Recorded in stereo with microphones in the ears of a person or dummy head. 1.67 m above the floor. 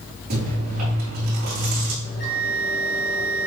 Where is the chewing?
50° right (ahead or behind), 3 m.